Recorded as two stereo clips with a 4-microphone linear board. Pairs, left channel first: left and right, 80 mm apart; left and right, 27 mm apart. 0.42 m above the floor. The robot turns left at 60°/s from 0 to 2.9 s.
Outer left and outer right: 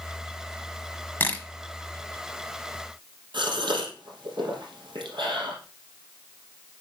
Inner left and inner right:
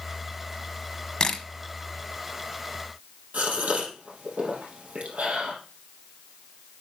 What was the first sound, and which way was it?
A camera shutter, 30° left (ahead or behind).